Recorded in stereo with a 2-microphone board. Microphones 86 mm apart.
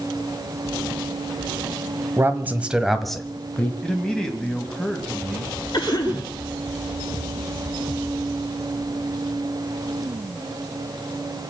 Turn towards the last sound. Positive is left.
turn(degrees=50)  # may be behind; listen again after turning